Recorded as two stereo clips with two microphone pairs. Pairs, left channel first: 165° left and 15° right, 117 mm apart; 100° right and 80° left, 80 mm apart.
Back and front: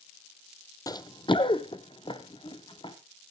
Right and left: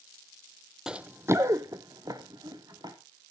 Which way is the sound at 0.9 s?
155° left.